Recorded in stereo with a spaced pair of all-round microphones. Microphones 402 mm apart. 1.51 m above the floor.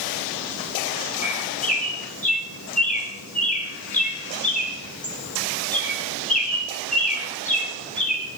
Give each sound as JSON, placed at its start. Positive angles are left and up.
{"t": 1.2, "sound": "a bird", "side_deg": 20, "distance_m": 2.5}